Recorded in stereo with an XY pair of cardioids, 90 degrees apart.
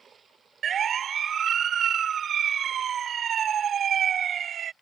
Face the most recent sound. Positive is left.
turn(degrees=-60)